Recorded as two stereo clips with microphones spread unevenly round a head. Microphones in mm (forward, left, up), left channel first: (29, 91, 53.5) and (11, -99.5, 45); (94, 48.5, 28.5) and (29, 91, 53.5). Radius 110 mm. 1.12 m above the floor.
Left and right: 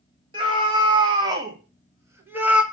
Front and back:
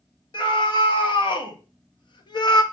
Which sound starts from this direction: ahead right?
A scream, at 0.3 s.